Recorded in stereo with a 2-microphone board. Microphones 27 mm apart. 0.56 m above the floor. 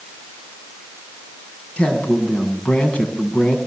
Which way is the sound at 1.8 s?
55° left (ahead or behind).